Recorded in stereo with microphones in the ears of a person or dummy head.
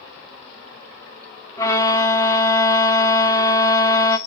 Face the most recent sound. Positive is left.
turn(degrees=10)  # may be behind; listen again after turning